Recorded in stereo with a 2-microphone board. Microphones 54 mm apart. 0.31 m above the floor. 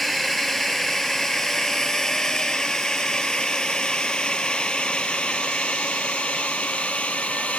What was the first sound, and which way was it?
A drone, centre (ahead or behind).